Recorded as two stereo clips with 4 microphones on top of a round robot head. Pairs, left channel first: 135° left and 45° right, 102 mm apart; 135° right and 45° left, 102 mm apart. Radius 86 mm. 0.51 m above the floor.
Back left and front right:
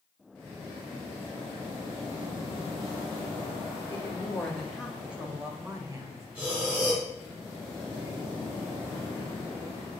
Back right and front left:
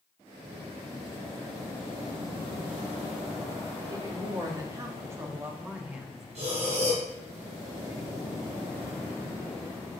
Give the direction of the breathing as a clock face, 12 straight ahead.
11 o'clock.